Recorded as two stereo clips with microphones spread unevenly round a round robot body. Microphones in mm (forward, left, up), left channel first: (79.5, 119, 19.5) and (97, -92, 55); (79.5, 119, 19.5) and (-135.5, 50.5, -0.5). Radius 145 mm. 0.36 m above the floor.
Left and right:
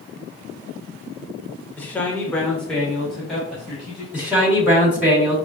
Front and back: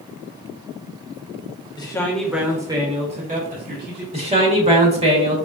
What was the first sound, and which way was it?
A man speaking, 65° left.